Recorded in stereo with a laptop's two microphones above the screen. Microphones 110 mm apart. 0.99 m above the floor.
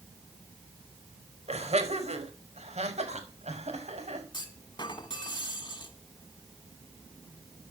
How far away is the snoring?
No snoring in this recording.